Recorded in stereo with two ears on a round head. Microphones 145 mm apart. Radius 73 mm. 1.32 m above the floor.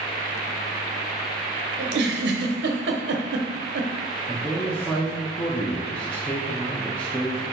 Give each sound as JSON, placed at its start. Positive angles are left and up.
{"t": 1.8, "sound": "a giggle", "side_deg": -75, "distance_m": 0.7}
{"t": 4.3, "sound": "a man speaking", "side_deg": 10, "distance_m": 0.8}